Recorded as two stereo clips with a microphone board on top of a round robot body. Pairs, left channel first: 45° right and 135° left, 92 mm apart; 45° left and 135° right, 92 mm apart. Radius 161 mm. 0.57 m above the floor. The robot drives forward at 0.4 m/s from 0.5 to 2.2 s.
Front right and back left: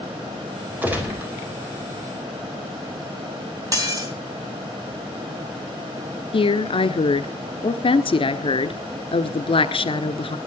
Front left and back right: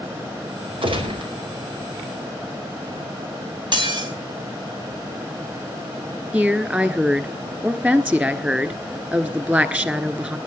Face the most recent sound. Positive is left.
turn(degrees=-60)